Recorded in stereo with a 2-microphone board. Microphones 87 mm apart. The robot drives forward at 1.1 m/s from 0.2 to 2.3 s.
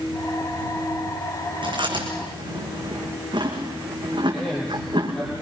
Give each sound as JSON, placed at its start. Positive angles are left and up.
{"t": 1.6, "sound": "chewing", "side_deg": -70, "distance_m": 5.5}
{"t": 4.3, "sound": "a man speaking", "side_deg": 10, "distance_m": 8.0}